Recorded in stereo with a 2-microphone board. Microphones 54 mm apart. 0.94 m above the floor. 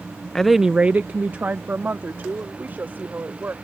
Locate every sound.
0.3 s a woman speaking: 10° left (ahead or behind); by 3.5 s 40° right (ahead or behind)